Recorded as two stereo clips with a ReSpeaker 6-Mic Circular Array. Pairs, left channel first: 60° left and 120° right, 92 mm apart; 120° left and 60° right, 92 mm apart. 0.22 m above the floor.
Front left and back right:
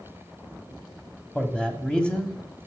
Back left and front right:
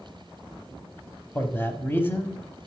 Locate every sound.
1.4 s a man speaking: 125° left, 1.0 m